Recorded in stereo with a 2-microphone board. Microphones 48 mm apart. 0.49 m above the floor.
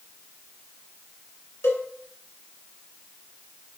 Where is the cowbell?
70° left (ahead or behind), 2.5 m.